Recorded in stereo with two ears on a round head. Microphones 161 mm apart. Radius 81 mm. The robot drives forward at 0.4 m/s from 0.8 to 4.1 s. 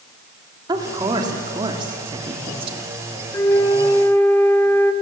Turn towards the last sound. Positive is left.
turn(degrees=15)  # may be behind; listen again after turning